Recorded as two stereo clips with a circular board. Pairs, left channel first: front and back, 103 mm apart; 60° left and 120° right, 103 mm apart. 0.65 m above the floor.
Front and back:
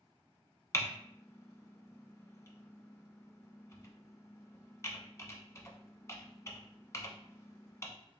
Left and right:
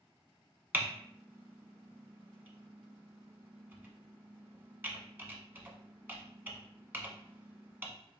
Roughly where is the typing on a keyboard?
Ahead right.